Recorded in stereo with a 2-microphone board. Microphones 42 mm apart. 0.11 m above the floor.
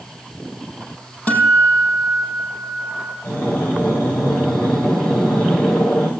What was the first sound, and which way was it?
A guitar, 40° left (ahead or behind).